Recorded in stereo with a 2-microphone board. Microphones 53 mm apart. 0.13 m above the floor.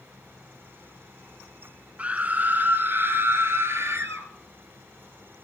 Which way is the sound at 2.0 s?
25° right (ahead or behind).